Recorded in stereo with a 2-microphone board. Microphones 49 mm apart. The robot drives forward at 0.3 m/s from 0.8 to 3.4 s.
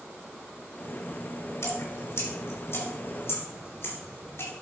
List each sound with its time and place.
1.6 s dripping: 70° left (ahead or behind), 2.5 m; by 4.5 s 60° left (ahead or behind), 3 m